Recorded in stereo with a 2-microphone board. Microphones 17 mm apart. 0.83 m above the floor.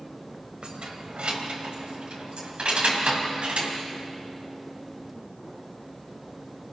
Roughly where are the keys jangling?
Right.